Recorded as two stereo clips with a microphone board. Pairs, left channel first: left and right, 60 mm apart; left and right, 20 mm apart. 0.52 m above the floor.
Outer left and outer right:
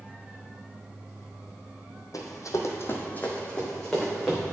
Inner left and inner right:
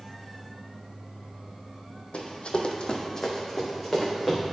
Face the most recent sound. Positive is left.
turn(degrees=0)  # may be behind; listen again after turning